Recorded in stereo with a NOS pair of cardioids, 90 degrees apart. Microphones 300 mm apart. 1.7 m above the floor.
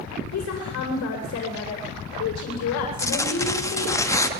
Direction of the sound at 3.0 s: 10° left.